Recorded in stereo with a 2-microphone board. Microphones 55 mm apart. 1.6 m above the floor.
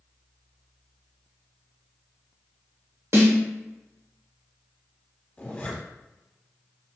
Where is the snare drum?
55° right (ahead or behind), 1.1 m.